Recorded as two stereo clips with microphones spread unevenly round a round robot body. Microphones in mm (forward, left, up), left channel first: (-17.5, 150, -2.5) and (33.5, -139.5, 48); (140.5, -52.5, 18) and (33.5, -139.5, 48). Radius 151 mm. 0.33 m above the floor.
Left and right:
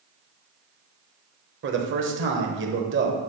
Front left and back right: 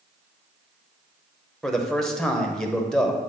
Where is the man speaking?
35° right, 1.1 m.